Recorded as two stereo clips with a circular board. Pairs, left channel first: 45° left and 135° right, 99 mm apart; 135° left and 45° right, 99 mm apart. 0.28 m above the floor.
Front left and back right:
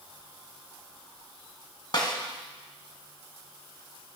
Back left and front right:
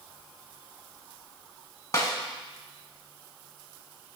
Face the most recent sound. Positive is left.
turn(degrees=80)